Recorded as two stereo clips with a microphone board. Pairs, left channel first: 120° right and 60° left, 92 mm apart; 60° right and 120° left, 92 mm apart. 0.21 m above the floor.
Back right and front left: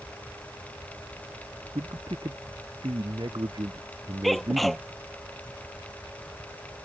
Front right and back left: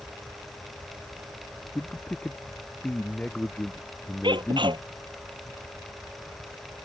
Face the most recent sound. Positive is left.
turn(degrees=150)